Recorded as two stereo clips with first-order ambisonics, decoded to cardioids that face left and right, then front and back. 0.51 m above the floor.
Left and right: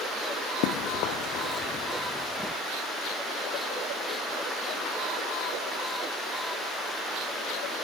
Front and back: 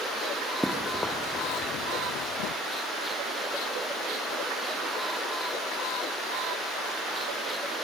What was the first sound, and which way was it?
Running footsteps, 90° left.